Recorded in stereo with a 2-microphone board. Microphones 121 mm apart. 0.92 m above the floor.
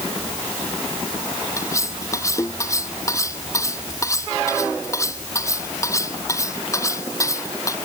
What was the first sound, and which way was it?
Cutlery clinking, 25° left (ahead or behind).